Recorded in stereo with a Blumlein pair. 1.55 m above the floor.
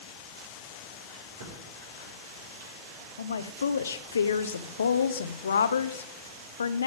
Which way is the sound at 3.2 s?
70° left.